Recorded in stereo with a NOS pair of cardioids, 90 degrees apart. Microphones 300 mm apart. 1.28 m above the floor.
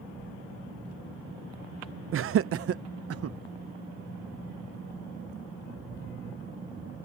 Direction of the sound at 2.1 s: 45° right.